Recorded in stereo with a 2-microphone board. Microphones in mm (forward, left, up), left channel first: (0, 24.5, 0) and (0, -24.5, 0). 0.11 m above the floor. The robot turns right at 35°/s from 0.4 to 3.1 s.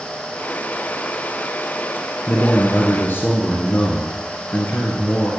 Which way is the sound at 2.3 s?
45° left (ahead or behind).